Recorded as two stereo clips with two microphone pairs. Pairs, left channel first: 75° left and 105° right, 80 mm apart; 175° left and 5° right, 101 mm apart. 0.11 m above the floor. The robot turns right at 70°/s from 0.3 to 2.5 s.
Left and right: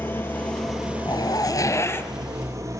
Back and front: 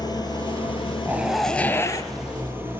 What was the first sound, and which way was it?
An engine running, 135° left.